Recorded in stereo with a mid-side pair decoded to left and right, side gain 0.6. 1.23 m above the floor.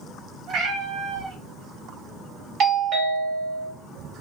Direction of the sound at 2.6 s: 55° right.